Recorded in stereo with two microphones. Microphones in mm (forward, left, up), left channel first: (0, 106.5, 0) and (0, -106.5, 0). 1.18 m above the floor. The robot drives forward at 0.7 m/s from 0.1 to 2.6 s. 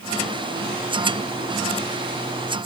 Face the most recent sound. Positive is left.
No sound to turn to.